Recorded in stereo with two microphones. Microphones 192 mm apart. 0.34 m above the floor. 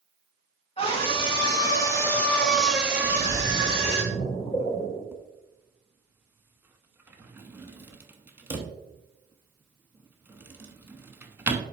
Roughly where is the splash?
Left.